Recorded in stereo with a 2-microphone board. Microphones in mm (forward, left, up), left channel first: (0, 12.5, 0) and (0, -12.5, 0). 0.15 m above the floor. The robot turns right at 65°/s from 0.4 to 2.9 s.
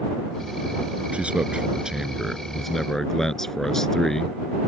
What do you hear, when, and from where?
1.1 s a man speaking: 90° right; by 4.4 s 25° left